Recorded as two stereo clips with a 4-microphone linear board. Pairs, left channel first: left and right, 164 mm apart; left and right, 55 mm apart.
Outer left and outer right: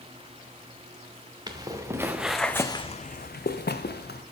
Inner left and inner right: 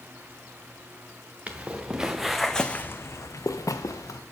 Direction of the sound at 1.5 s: 25° right (ahead or behind).